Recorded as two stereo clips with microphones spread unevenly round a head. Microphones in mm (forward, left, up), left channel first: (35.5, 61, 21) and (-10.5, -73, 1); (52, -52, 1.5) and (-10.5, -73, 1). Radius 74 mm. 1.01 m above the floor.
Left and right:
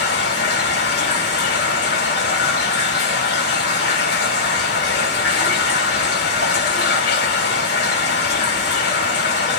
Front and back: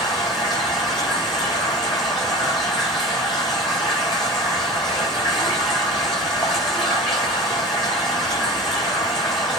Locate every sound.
0.0 s running water: 65° left, 6.5 m